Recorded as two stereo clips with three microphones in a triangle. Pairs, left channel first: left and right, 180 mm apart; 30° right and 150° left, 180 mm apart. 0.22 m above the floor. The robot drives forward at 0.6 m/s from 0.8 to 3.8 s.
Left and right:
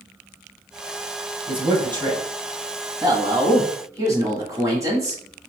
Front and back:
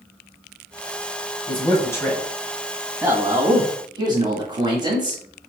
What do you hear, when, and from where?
1.5 s a man speaking: 60° right, 1.3 m; by 5.2 s 155° right, 1.7 m